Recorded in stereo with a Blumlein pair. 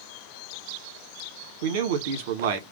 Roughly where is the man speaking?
Ahead right.